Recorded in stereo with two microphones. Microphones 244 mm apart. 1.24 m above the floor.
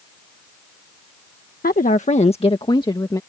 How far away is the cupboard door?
I don't hear a cupboard door.